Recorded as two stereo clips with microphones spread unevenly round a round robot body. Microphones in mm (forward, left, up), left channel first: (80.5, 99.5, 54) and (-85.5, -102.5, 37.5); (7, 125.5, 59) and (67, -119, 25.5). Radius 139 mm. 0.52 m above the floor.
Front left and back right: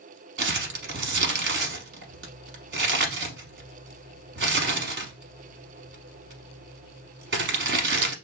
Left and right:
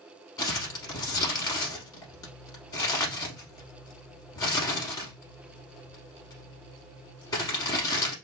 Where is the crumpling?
Straight behind, 0.8 m.